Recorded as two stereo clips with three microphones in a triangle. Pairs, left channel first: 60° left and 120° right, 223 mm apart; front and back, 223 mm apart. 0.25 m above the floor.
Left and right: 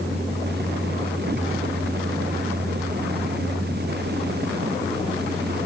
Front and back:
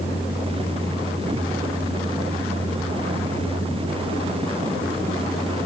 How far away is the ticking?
I don't hear ticking.